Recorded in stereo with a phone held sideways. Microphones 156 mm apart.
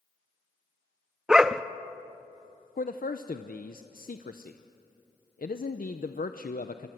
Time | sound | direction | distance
1.3 | a dog barking | 5° right (ahead or behind) | 0.6 m
2.8 | a man speaking | 65° left (ahead or behind) | 0.7 m